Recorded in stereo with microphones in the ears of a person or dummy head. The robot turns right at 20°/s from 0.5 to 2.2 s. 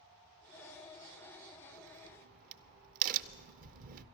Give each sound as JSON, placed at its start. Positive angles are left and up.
{"t": 1.7, "sound": "a crack", "side_deg": -55, "distance_m": 0.6}